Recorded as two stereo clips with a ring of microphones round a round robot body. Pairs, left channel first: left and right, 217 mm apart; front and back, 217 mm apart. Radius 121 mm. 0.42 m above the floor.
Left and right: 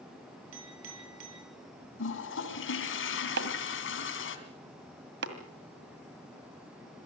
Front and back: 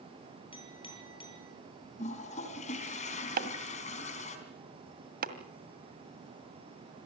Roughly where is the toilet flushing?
Ahead left.